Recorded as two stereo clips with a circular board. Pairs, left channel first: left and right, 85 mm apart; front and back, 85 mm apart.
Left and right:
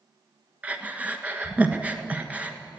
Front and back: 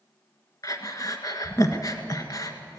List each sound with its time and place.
0.6 s breathing: 20° right, 1.4 m